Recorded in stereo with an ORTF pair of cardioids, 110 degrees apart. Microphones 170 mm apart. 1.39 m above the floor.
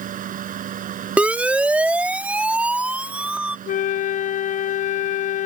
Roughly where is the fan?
Ahead right.